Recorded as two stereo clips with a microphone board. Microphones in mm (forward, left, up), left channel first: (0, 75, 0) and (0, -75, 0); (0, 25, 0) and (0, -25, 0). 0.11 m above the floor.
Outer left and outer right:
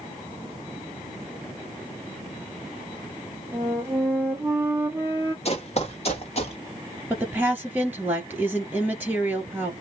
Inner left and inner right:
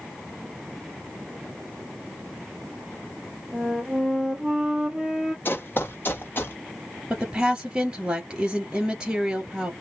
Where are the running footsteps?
50° left (ahead or behind), 1.1 m; by 6.6 s 45° left (ahead or behind), 1.7 m.